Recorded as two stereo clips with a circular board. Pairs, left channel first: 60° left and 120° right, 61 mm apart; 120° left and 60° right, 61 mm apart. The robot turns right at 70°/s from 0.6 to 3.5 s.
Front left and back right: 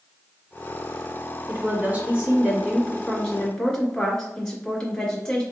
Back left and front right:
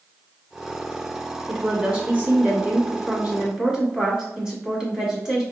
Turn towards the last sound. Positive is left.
turn(degrees=0)